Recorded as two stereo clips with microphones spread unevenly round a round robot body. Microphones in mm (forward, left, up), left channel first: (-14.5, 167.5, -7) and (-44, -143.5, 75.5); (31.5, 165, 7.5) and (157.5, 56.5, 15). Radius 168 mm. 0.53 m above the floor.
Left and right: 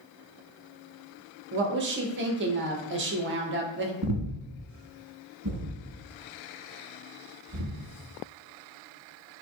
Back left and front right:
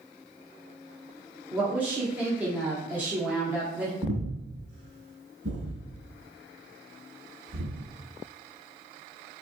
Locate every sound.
1.5 s a woman speaking: 115° right, 0.6 m
4.0 s breathing: 70° right, 1.0 m